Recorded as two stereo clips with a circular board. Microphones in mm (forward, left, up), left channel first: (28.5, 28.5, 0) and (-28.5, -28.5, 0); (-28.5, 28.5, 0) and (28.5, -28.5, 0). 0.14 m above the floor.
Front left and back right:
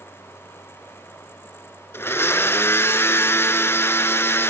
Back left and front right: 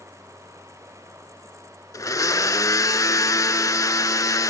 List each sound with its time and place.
1.9 s a blender: 100° left, 0.5 m